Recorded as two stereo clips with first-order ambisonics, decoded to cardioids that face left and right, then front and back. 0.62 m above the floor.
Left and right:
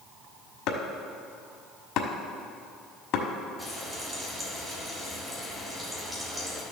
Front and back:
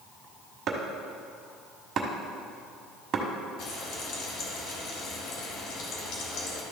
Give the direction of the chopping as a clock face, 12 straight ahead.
8 o'clock.